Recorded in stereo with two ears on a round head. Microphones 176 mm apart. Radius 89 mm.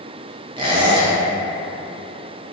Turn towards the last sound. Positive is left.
turn(degrees=-25)  # may be behind; listen again after turning